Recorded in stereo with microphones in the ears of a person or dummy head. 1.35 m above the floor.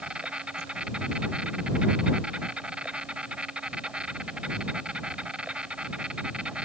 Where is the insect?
5° right (ahead or behind).